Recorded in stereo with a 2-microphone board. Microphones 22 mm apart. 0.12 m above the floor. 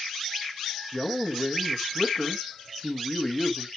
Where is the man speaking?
25° left (ahead or behind), 1.4 m.